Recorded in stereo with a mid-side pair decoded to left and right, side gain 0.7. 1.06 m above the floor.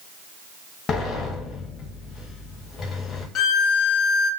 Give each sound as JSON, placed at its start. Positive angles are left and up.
{"t": 0.9, "sound": "a sliding door", "azimuth_deg": 35, "distance_m": 0.6}
{"t": 3.4, "sound": "a violin", "azimuth_deg": 45, "distance_m": 0.5}